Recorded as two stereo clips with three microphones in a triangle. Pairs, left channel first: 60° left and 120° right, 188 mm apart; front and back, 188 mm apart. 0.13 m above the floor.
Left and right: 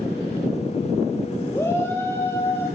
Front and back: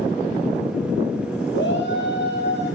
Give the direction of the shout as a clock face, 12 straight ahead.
1 o'clock.